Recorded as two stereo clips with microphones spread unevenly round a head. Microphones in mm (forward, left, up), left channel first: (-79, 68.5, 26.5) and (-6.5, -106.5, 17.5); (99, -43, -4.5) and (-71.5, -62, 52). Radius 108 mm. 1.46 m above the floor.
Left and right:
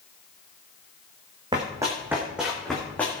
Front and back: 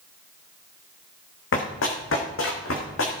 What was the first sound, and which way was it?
Running footsteps, 5° left.